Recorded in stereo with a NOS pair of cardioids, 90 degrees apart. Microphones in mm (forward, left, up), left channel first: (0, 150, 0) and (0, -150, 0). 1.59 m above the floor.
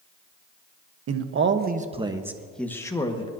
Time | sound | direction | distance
1.1 | a man speaking | 55° right | 1.3 m